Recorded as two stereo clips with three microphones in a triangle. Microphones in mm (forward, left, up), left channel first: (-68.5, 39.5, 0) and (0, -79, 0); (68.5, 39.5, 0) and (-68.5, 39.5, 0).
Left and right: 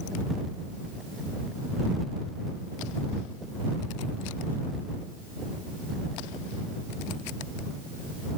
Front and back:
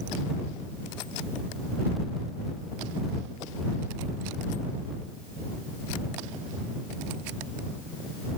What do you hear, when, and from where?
Only background noise.